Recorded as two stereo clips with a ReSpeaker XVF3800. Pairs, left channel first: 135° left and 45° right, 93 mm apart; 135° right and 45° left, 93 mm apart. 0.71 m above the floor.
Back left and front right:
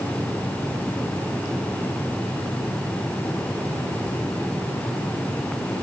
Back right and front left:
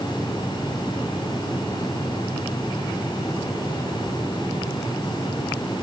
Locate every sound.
Only background noise.